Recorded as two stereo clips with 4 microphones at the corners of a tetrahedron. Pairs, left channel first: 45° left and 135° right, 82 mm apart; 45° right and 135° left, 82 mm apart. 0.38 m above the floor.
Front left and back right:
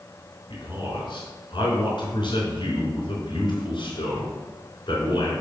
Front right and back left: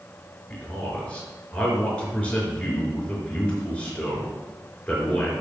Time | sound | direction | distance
0.5 | a man speaking | 30° left | 4 m